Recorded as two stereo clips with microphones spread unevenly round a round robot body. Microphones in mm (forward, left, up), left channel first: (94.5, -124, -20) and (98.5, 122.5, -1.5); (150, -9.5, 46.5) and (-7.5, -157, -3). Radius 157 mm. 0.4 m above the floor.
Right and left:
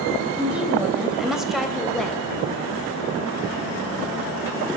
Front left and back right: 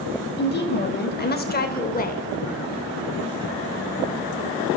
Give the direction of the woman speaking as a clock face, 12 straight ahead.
12 o'clock.